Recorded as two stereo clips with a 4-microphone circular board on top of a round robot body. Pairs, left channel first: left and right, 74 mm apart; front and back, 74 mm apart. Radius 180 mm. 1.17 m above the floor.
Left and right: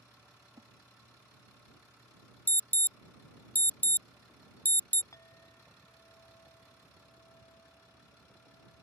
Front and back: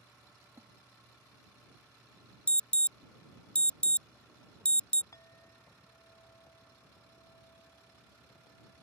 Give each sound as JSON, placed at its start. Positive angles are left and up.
{"t": 0.4, "sound": "a splash", "azimuth_deg": -130}
{"t": 2.5, "sound": "an alarm", "azimuth_deg": 55}
{"t": 5.1, "sound": "a clink", "azimuth_deg": 45}